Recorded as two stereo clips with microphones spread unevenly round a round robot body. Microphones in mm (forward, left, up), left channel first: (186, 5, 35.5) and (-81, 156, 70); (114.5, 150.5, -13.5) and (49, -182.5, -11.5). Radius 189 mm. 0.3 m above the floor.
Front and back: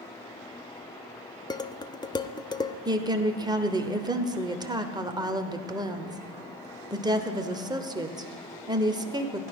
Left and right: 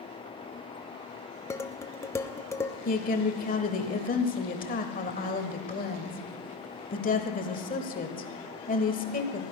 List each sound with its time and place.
1.5 s dishes clattering: 10° left, 0.6 m
2.9 s a woman speaking: 75° left, 1.2 m